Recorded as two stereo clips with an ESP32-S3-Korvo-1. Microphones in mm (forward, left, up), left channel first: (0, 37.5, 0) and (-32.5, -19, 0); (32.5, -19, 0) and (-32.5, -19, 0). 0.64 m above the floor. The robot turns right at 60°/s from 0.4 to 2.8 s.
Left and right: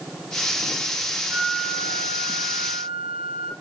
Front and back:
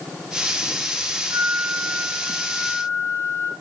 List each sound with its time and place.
1.3 s a flute: 125° right, 9.5 m; by 3.5 s 35° right, 9.5 m